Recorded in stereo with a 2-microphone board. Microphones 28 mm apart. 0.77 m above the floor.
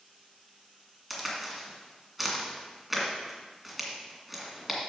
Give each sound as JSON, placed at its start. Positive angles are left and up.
{"t": 1.1, "sound": "a crack", "side_deg": -5, "distance_m": 2.0}